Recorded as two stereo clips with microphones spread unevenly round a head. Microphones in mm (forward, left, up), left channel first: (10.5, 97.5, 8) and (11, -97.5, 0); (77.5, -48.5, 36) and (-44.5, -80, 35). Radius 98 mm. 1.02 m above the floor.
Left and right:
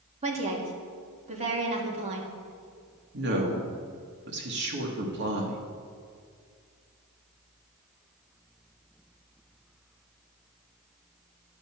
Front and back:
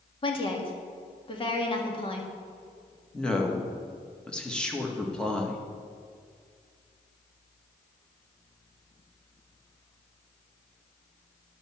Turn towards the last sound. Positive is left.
turn(degrees=-70)